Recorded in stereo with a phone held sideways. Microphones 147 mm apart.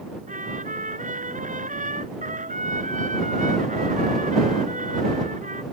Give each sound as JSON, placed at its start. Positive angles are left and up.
{"t": 0.3, "sound": "a trumpet", "side_deg": -65}